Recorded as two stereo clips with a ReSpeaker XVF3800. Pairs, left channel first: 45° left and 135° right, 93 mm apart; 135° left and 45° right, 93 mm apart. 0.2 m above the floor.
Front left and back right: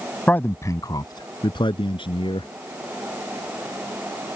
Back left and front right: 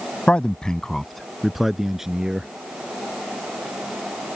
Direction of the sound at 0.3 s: 85° left.